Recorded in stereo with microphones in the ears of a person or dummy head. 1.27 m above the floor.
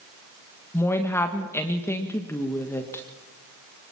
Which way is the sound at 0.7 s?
15° left (ahead or behind).